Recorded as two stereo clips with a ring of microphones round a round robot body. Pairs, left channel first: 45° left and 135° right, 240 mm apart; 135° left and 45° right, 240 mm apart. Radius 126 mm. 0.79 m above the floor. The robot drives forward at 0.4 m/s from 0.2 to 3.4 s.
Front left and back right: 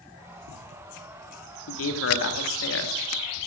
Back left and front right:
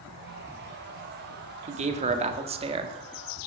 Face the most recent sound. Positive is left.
turn(degrees=25)